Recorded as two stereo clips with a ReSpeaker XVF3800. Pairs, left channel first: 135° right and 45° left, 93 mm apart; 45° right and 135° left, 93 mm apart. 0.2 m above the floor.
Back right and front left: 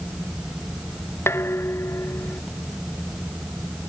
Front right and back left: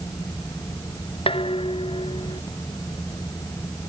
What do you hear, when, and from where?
1.3 s dishes clattering: 70° right